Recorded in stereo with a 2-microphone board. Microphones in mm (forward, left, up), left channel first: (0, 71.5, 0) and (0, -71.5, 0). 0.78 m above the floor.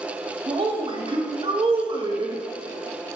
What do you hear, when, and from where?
0.5 s a woman speaking: 35° right (ahead or behind), 0.8 m